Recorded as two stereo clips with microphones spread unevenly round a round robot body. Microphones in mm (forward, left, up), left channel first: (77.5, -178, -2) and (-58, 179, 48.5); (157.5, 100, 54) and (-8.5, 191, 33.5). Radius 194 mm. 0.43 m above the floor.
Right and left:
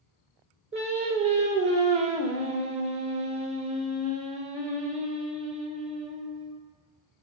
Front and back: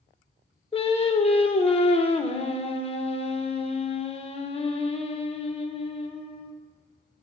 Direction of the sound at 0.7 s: 35° left.